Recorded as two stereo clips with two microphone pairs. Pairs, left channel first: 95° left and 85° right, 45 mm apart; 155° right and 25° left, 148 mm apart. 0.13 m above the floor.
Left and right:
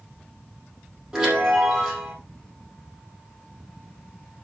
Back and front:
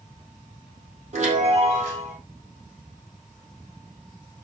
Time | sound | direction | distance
1.1 | a chime | 10° right | 5.5 m